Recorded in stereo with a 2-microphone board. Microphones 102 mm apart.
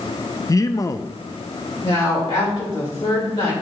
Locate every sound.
0.5 s a man speaking: 35° left (ahead or behind), 0.5 m
1.8 s a woman speaking: 65° left (ahead or behind), 3 m